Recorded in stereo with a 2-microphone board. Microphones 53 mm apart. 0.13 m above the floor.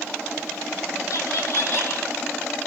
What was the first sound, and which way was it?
Laughter, 60° left (ahead or behind).